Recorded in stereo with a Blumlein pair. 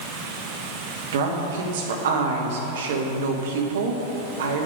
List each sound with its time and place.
1.1 s a woman speaking: 60° right, 1.4 m